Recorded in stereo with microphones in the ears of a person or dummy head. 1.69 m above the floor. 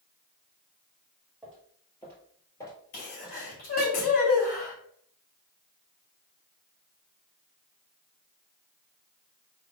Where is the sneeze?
45° left (ahead or behind), 2 m.